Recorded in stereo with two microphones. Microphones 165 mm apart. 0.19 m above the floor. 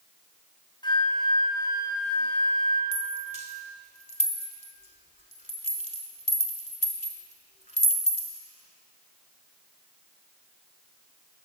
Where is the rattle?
50° left (ahead or behind), 0.7 m.